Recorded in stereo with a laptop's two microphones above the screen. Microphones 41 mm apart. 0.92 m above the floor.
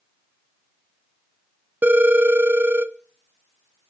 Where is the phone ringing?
50° right (ahead or behind), 0.8 m.